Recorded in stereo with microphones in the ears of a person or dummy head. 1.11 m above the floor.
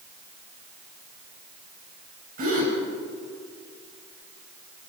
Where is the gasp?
50° right (ahead or behind), 5 m.